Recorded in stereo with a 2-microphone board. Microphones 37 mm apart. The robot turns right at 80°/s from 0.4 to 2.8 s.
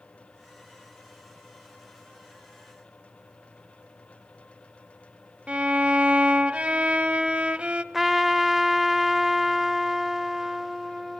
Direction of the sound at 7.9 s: 5° right (ahead or behind).